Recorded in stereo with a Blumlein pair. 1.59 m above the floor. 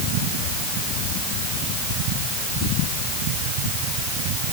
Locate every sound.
Only background noise.